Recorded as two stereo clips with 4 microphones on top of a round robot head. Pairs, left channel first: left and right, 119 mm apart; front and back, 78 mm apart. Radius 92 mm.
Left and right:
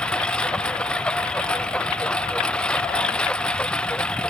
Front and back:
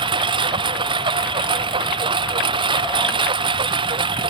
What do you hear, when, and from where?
0.0 s a lawn mower: 175° left